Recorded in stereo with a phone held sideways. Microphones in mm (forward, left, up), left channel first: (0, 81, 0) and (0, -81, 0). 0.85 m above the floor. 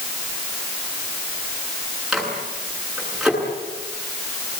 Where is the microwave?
Centre (ahead or behind), 9 m.